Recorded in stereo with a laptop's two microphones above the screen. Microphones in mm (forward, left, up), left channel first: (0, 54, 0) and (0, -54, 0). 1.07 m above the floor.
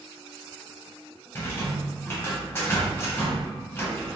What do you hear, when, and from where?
1.4 s a rattle: 20° left (ahead or behind), 0.7 m